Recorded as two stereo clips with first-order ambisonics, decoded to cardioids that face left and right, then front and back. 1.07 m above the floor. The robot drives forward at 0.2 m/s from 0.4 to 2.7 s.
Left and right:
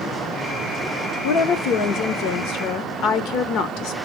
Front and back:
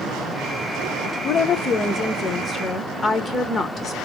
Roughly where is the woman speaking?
Ahead left.